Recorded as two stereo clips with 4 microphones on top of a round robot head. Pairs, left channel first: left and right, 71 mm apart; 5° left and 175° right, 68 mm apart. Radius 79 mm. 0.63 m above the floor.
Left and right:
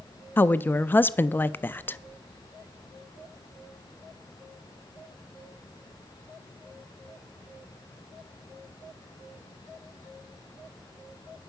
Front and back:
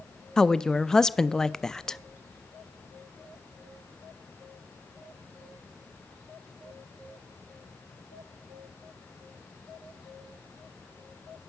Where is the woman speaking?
75° left, 0.5 m.